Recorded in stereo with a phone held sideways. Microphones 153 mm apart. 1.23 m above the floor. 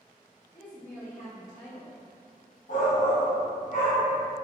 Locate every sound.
0.5 s a woman speaking: 55° left (ahead or behind), 1.4 m
2.7 s a shout: 60° left (ahead or behind), 1.0 m